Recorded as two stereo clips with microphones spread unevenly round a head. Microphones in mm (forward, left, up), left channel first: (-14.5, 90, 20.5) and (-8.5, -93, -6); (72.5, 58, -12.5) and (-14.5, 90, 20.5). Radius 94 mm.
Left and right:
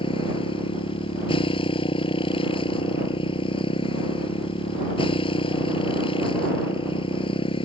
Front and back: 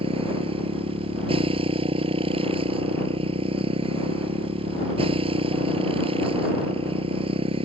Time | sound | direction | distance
0.0 | a motorcycle | 155° left | ?